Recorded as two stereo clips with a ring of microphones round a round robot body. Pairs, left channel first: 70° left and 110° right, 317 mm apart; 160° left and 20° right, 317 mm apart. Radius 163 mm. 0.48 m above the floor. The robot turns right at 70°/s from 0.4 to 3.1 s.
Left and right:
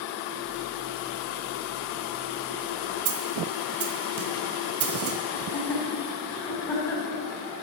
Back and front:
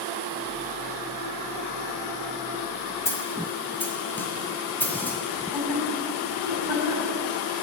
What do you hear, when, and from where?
3.0 s a snare drum: 120° right, 1.4 m
5.3 s laughter: 150° left, 4 m